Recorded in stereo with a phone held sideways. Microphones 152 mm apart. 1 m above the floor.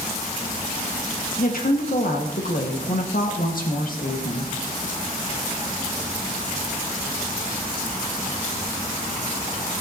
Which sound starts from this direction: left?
A woman speaking, at 1.4 s.